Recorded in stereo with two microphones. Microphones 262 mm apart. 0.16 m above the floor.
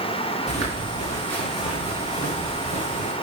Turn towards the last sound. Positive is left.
turn(degrees=-30)  # may be behind; listen again after turning